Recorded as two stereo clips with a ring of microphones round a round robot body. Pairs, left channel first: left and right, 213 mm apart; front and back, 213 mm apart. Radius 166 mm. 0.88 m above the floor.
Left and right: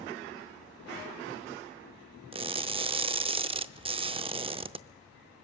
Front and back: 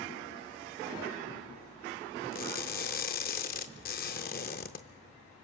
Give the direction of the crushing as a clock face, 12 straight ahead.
1 o'clock.